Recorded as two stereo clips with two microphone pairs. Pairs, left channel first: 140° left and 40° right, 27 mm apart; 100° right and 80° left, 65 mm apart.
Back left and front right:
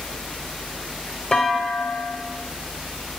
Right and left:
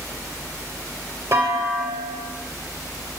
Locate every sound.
1.3 s a clunk: 80° left, 0.9 m